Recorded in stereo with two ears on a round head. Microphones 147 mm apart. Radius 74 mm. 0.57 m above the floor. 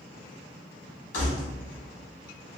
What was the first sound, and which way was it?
Keys jangling, 50° left (ahead or behind).